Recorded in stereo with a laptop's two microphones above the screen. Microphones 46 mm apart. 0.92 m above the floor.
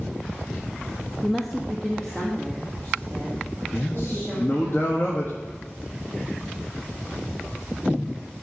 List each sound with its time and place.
1.2 s a woman speaking: 5° right (ahead or behind), 0.5 m; by 4.7 s 10° left (ahead or behind), 3.5 m
3.7 s a man speaking: 55° left (ahead or behind), 1.5 m